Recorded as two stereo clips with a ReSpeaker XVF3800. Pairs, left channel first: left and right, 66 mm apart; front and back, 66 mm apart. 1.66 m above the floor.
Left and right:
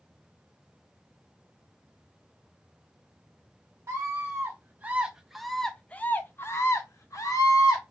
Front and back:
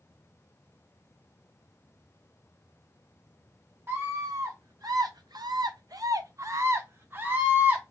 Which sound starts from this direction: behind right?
A scream, at 3.9 s.